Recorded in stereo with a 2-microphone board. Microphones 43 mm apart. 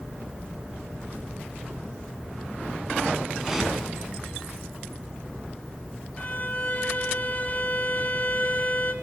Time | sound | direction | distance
3.4 | a whoosh | 5° right (ahead or behind) | 5 m
6.2 | a violin | 35° left (ahead or behind) | 2 m